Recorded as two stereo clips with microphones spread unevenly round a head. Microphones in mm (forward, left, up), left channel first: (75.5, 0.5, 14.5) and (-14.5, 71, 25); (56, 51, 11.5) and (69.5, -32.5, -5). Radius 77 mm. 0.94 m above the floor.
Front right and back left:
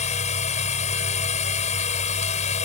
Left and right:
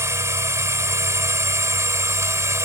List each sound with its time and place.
0.0 s a machine running: 25° right